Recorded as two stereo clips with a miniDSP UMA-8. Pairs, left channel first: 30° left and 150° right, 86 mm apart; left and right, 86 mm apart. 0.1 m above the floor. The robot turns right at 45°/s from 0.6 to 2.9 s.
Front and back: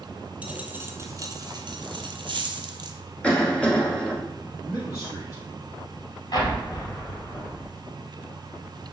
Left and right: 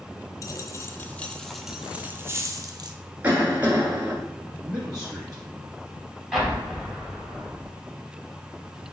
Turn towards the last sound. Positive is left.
turn(degrees=0)